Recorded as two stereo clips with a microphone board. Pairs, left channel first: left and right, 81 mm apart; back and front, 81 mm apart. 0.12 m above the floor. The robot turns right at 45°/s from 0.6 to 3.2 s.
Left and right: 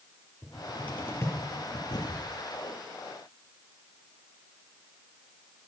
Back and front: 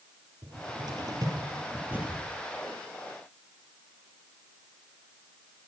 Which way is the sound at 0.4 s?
5° left.